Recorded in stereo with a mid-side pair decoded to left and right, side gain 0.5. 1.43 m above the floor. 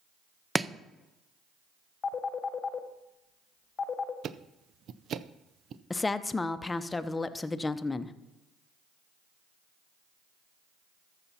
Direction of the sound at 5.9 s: 20° left.